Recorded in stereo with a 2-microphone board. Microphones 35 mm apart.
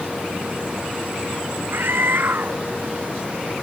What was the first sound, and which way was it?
A scream, 70° right (ahead or behind).